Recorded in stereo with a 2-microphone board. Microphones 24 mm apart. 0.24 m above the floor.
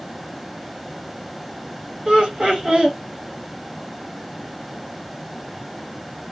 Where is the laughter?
55° right (ahead or behind), 2.5 m.